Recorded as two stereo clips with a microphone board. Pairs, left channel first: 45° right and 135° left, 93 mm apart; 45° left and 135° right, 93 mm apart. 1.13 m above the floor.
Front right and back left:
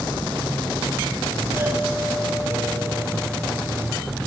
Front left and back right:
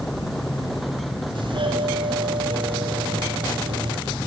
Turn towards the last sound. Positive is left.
turn(degrees=-165)